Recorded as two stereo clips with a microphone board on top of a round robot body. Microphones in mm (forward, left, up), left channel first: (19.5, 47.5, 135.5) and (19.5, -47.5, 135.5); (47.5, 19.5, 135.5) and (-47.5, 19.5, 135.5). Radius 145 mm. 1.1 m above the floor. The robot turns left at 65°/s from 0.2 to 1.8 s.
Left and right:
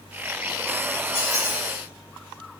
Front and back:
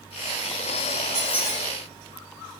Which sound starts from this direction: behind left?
A squeak, at 1.1 s.